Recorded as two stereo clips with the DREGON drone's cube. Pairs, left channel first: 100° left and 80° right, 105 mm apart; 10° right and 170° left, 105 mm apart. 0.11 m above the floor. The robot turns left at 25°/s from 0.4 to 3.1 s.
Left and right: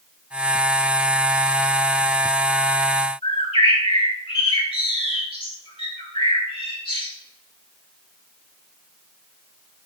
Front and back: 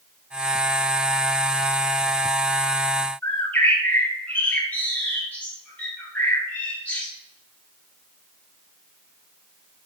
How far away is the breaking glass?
I don't hear breaking glass.